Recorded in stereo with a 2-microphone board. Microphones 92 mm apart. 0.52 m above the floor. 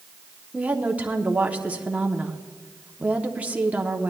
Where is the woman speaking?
15° right (ahead or behind), 0.8 m.